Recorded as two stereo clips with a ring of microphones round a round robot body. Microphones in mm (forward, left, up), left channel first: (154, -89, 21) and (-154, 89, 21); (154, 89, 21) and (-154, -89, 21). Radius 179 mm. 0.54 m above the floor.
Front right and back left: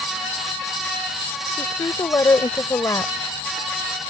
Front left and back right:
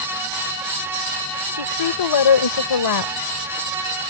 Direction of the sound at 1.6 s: 50° left.